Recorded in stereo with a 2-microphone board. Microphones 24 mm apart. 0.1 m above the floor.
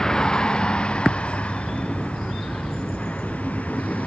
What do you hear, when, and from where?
0.0 s a vehicle: 25° left (ahead or behind); by 4.1 s 75° left (ahead or behind)